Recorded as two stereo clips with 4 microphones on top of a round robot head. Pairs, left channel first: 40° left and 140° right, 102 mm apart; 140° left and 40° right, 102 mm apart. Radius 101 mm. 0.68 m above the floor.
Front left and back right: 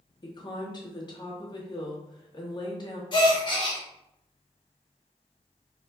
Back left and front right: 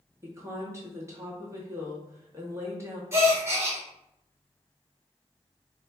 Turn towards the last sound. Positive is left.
turn(degrees=15)